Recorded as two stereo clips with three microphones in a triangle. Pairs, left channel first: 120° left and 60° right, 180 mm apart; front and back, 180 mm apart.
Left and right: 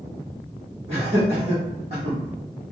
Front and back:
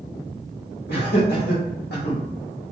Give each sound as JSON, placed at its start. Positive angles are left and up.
{"t": 0.9, "sound": "laughter", "azimuth_deg": -5, "distance_m": 1.5}